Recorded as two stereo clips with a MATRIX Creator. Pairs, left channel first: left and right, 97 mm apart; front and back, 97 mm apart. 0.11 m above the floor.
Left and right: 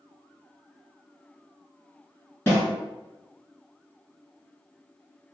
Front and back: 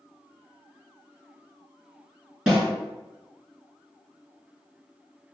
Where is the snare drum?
110° left, 1.6 m.